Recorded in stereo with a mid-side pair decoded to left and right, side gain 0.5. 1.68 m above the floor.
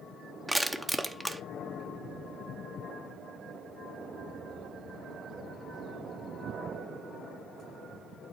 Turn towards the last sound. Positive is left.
turn(degrees=-10)